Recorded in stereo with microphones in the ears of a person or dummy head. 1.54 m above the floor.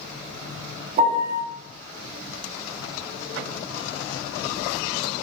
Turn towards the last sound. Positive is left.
turn(degrees=-40)  # may be behind; listen again after turning